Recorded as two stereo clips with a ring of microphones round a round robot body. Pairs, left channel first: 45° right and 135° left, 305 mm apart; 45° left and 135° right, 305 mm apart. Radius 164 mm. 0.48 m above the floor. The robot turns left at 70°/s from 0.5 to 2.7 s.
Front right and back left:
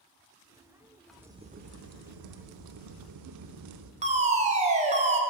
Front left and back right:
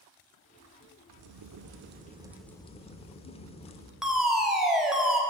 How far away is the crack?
About 0.8 m.